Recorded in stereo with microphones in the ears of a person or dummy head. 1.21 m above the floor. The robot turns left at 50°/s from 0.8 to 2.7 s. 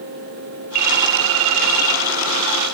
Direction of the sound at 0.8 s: 45° right.